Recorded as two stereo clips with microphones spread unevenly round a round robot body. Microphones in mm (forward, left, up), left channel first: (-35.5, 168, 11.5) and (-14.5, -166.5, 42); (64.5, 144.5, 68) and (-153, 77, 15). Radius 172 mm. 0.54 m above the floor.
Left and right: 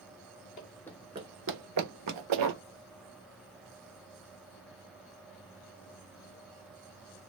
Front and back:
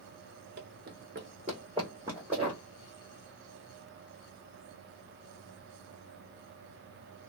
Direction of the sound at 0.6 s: 155° left.